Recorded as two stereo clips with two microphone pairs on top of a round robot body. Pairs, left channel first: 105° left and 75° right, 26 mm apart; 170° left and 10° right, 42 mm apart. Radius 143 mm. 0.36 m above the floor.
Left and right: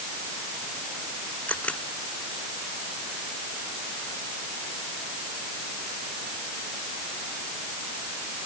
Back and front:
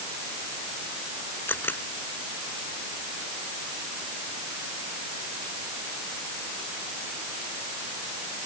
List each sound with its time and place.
1.5 s a camera shutter: 135° left